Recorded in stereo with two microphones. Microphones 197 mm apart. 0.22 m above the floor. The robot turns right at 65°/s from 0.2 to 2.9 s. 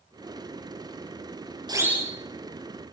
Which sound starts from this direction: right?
A siren, at 1.7 s.